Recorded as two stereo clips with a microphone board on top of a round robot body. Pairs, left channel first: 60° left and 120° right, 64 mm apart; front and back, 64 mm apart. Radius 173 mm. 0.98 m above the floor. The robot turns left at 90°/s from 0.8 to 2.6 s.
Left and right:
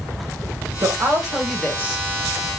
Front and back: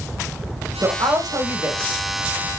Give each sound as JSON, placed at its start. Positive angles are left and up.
{"t": 0.8, "sound": "a woman speaking", "azimuth_deg": -150, "distance_m": 1.7}